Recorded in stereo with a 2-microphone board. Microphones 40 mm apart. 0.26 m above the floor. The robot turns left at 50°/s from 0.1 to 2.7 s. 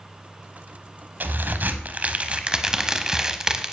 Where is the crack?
85° right, 0.8 m; by 3.7 s 160° right, 0.8 m.